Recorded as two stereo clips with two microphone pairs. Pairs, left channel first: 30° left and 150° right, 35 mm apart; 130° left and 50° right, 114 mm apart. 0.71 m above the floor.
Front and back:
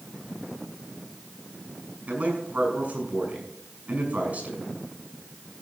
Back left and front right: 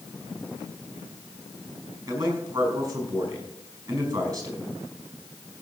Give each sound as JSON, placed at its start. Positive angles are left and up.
{"t": 2.1, "sound": "a man speaking", "azimuth_deg": -110, "distance_m": 5.0}